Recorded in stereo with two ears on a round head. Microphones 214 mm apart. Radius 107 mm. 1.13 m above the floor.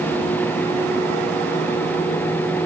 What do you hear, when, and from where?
Only background noise.